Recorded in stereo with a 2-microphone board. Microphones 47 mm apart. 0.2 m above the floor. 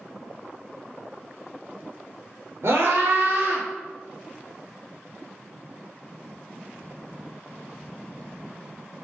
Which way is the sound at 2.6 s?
65° right (ahead or behind).